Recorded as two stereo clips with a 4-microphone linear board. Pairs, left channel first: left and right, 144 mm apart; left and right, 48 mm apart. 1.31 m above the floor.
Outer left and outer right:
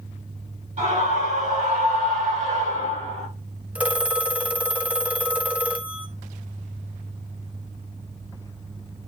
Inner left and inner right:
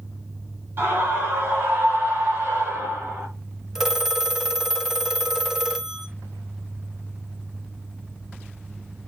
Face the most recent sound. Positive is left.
turn(degrees=-10)  # may be behind; listen again after turning